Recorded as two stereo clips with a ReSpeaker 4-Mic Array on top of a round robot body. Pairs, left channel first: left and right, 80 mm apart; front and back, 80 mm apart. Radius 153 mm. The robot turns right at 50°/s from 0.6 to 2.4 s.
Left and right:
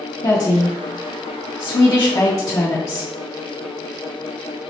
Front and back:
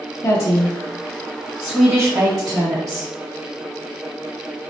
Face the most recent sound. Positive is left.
turn(degrees=130)